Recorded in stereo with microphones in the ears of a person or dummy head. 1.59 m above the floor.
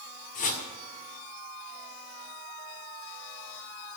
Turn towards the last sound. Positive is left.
turn(degrees=40)  # may be behind; listen again after turning